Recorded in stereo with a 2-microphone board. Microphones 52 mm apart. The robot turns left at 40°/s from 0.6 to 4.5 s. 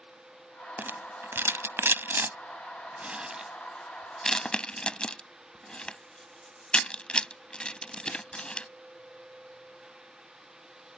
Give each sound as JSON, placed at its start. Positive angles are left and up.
{"t": 0.8, "sound": "a rattle", "side_deg": -40}